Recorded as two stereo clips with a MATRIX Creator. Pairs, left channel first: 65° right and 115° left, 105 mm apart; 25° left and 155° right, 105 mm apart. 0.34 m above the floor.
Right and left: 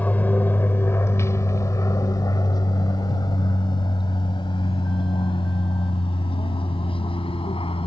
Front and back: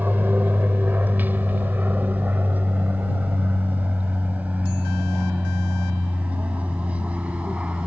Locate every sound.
0.0 s an aircraft: 120° right; by 7.9 s 80° right